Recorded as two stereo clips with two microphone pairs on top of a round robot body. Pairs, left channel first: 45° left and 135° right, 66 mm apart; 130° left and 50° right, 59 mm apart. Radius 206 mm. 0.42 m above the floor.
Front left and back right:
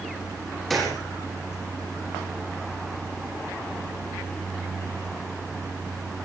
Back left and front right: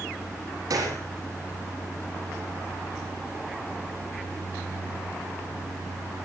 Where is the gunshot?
40° right, 7 m.